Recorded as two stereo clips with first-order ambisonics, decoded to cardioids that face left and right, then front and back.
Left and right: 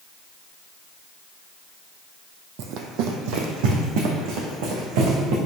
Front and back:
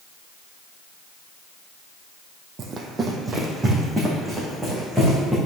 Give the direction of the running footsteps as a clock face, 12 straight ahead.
4 o'clock.